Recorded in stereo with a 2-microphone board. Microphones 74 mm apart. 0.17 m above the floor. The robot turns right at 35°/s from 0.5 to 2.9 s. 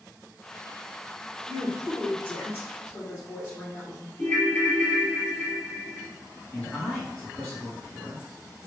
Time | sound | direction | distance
1.5 | a woman speaking | 15° left | 1.5 m
4.2 | a ringtone | 20° left (ahead or behind) | 0.7 m
6.5 | a man speaking | 10° left (ahead or behind) | 1.6 m